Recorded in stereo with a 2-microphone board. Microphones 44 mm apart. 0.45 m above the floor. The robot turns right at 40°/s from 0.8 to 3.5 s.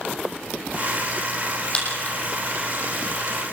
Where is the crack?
25° left (ahead or behind), 7.5 m; by 3.4 s 90° left, 7.5 m.